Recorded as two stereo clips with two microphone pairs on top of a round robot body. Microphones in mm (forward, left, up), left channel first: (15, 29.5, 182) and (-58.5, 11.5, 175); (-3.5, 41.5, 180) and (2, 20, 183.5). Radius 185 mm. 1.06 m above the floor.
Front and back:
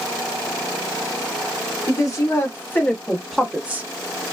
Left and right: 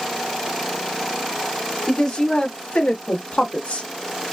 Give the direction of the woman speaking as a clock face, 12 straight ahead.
10 o'clock.